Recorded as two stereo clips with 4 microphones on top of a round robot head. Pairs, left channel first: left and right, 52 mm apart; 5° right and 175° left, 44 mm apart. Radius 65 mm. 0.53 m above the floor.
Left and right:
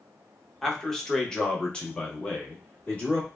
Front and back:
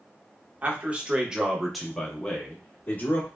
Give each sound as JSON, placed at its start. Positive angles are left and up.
{"t": 0.6, "sound": "a man speaking", "azimuth_deg": 170, "distance_m": 1.0}